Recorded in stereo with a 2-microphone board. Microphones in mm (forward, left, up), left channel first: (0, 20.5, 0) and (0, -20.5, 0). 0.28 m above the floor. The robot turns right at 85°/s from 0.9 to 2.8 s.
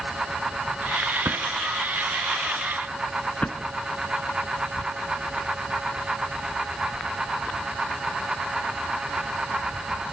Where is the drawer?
70° right (ahead or behind), 2 m; by 3.6 s 40° left (ahead or behind), 2 m.